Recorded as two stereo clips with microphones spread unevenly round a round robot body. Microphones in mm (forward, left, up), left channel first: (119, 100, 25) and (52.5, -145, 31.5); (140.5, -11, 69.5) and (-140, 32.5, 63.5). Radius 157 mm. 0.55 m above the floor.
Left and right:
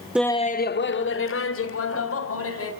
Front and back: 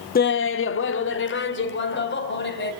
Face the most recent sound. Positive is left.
turn(degrees=45)